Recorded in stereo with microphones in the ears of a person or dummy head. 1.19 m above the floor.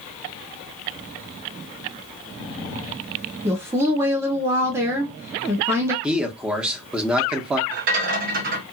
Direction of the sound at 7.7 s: 45° right (ahead or behind).